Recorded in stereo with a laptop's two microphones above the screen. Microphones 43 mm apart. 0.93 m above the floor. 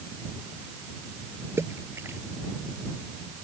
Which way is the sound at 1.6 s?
75° right (ahead or behind).